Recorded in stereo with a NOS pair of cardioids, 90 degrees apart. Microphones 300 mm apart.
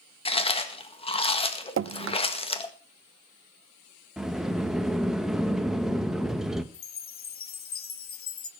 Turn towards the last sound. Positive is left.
turn(degrees=45)